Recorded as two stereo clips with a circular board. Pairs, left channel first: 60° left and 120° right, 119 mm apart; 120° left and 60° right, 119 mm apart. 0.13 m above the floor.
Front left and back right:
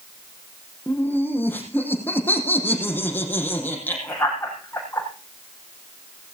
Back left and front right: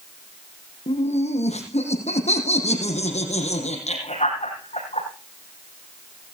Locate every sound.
0.9 s laughter: 135° left, 5.5 m